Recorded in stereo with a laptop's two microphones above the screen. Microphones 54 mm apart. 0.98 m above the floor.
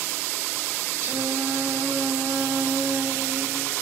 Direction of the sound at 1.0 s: 65° right (ahead or behind).